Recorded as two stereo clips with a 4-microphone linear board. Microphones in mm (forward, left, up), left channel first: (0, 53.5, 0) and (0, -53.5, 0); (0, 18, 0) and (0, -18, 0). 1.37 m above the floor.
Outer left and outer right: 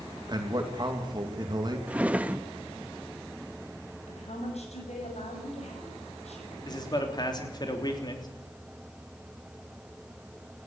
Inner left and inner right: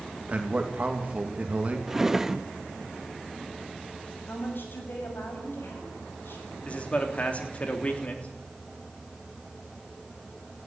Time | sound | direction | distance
0.3 | a man speaking | 40° right (ahead or behind) | 2.5 m
1.9 | a drawer | 10° right (ahead or behind) | 0.8 m
4.1 | a woman speaking | 85° left | 7 m
6.7 | a man speaking | 40° left (ahead or behind) | 3.5 m